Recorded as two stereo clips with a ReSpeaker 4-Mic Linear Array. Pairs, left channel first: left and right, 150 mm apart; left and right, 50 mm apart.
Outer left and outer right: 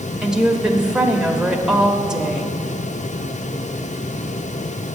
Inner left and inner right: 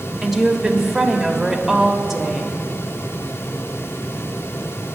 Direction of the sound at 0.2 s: 5° right (ahead or behind).